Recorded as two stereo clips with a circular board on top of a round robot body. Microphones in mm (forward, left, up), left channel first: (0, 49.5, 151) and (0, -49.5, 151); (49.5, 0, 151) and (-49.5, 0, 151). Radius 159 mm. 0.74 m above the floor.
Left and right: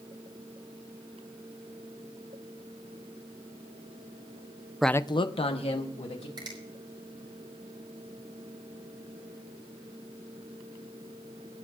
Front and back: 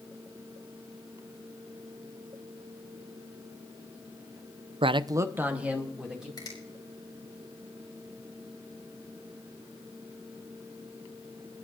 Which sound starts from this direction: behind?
A man speaking, at 4.8 s.